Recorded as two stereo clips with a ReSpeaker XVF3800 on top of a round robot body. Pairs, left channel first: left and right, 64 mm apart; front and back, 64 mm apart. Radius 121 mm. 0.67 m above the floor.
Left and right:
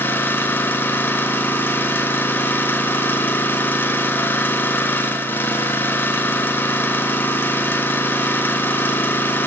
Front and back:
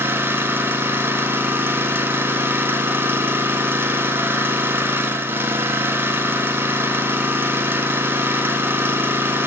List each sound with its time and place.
0.0 s an engine running: 135° left, 1.1 m